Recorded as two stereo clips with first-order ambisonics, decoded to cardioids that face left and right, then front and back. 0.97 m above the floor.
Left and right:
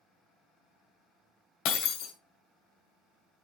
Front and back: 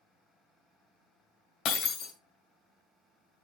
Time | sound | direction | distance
1.6 | breaking glass | 60° left | 1.8 m